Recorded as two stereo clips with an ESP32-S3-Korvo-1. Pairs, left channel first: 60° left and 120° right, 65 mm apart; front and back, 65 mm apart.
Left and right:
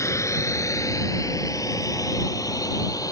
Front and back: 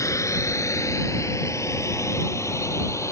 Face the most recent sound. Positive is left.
turn(degrees=40)